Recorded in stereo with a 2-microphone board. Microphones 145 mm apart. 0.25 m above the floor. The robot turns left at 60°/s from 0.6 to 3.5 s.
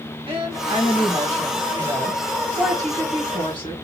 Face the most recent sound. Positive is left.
turn(degrees=130)